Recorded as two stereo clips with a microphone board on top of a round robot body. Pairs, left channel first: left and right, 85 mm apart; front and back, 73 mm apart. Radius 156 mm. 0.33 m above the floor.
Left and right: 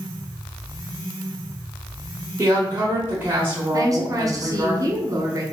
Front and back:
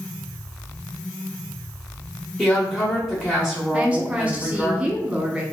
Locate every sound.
2.4 s a woman speaking: 95° right, 1.2 m
3.7 s a woman speaking: 110° right, 1.1 m